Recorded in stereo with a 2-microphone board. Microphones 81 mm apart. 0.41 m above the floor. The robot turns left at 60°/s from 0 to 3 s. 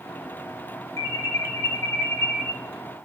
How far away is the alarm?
About 1.0 m.